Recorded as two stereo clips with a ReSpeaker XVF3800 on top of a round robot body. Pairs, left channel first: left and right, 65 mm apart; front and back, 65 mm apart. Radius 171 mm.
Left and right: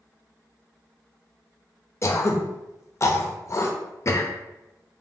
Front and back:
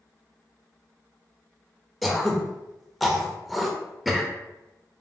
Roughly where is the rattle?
No rattle in this recording.